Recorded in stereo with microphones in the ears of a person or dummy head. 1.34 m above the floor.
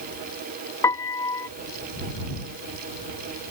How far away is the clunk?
I don't hear a clunk.